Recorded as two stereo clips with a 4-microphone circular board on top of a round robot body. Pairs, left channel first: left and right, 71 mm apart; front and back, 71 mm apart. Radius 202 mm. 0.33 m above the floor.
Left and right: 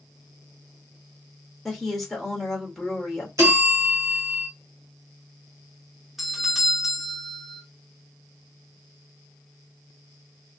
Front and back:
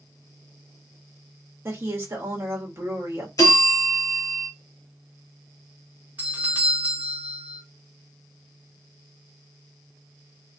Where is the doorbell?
170° right, 1.3 m.